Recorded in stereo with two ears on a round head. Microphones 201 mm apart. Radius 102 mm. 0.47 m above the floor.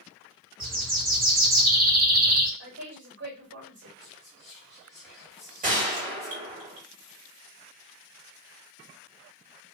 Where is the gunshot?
40° right (ahead or behind), 1.6 m.